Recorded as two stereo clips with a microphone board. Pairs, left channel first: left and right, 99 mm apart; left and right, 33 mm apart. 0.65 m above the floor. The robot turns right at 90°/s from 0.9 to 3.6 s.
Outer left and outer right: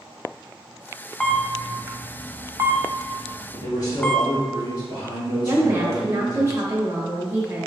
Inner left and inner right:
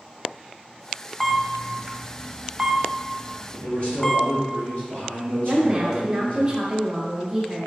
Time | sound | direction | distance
1.2 | a camera shutter | 5° left (ahead or behind) | 0.5 m
3.5 | a man speaking | 35° left (ahead or behind) | 1.6 m
5.4 | a woman speaking | 25° right (ahead or behind) | 0.8 m